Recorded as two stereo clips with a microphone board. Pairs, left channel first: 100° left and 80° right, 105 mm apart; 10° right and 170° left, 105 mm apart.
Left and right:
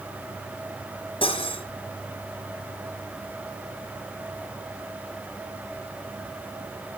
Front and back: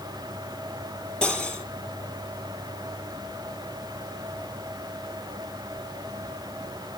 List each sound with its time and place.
1.2 s cutlery clinking: 70° left, 3 m